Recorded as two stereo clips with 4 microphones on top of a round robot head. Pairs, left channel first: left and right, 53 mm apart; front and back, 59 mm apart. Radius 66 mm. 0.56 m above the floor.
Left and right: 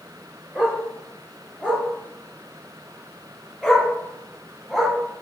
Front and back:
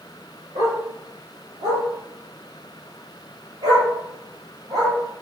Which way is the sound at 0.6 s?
160° right.